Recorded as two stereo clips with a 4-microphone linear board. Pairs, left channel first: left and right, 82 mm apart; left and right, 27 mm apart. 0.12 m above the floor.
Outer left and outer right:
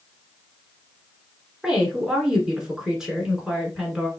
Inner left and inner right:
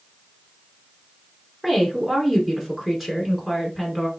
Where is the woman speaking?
10° right (ahead or behind), 1.2 m.